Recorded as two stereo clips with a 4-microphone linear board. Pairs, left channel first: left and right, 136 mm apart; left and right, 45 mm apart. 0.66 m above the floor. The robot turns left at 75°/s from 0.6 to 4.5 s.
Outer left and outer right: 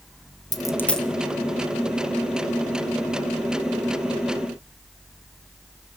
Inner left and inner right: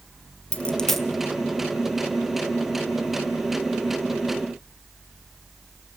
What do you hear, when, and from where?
0.5 s a dropped coin: 25° left (ahead or behind), 1.0 m; by 1.1 s 5° right (ahead or behind), 1.0 m